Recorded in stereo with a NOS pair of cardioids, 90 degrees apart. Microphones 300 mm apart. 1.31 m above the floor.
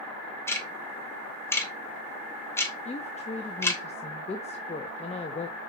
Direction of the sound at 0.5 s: 10° left.